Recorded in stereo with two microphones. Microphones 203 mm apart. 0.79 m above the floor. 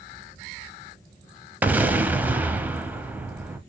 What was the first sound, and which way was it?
An explosion, 10° right (ahead or behind).